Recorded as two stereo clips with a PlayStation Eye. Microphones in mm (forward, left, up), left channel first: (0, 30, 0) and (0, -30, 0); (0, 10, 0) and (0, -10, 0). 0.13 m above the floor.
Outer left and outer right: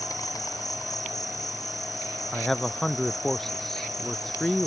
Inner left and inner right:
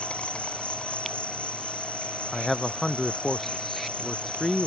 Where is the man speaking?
5° left (ahead or behind).